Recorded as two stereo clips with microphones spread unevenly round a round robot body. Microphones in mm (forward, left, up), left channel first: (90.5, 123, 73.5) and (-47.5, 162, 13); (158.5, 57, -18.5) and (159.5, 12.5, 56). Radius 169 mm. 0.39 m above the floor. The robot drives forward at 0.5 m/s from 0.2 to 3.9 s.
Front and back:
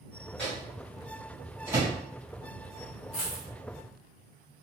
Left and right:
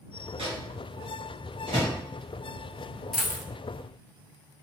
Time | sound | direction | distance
0.4 | a microwave | 120° right | 1.3 m
3.1 | a dropped coin | 45° right | 0.7 m